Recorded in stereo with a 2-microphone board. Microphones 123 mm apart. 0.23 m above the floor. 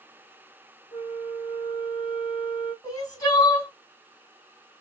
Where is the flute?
40° left (ahead or behind), 0.9 m.